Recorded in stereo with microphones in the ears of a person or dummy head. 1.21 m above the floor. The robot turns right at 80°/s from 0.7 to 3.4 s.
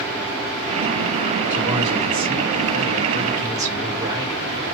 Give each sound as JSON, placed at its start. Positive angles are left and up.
{"t": 1.5, "sound": "a man speaking", "azimuth_deg": -170, "distance_m": 2.5}